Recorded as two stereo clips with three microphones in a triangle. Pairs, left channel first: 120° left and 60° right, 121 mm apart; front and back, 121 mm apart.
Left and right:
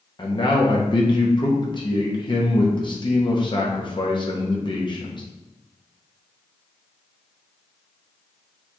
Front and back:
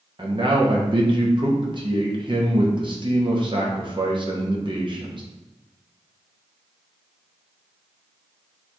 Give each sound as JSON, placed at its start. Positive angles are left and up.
{"t": 0.2, "sound": "a man speaking", "azimuth_deg": 150, "distance_m": 0.7}